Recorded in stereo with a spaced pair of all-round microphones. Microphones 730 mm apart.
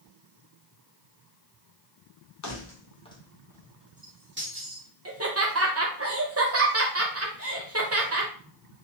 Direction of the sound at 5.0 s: 20° right (ahead or behind).